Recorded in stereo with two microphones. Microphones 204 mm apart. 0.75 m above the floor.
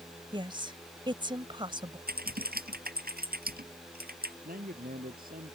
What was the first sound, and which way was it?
A woman speaking, 25° right (ahead or behind).